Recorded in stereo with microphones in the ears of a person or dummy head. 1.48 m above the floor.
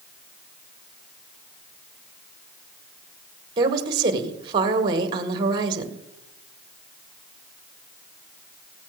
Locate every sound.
3.6 s a woman speaking: 30° right (ahead or behind), 1.5 m